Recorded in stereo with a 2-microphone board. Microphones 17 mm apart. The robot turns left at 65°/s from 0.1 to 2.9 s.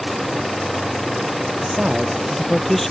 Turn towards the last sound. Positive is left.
turn(degrees=160)